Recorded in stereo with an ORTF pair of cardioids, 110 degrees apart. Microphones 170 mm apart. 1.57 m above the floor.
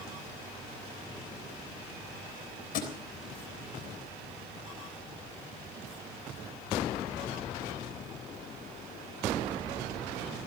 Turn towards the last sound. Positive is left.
turn(degrees=60)